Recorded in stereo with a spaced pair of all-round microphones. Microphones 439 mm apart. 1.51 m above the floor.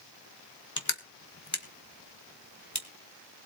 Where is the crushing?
40° left (ahead or behind), 1.8 m.